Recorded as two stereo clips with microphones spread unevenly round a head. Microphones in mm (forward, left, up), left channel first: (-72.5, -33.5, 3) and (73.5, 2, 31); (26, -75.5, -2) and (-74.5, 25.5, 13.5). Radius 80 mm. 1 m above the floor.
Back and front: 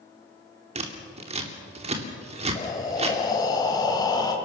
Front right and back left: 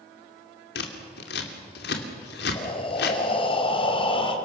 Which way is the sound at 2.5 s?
100° right.